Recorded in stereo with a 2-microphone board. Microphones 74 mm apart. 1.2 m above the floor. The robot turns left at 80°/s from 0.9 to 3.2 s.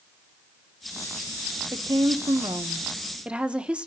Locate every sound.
1.7 s a woman speaking: 45° right, 0.8 m; by 3.9 s 165° right, 0.8 m